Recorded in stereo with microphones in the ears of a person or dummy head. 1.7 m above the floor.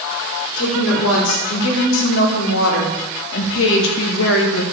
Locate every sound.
0.6 s a woman speaking: 75° left (ahead or behind), 5 m; by 4.6 s 65° left (ahead or behind), 2.5 m